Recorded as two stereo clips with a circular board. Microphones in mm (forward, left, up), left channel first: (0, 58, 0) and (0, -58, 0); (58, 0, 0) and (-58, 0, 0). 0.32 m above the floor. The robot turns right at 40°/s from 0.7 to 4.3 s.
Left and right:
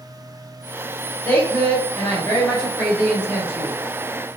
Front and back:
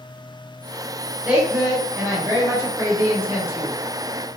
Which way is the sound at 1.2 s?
120° left.